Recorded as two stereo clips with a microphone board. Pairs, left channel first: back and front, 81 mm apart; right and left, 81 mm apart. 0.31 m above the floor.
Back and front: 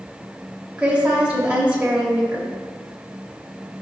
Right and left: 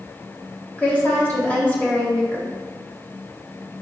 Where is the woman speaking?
50° right, 0.9 m.